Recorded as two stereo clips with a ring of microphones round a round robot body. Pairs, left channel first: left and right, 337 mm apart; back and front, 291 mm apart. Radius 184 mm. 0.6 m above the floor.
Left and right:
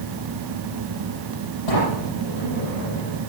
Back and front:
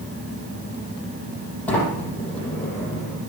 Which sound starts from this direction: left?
A sliding door, at 1.7 s.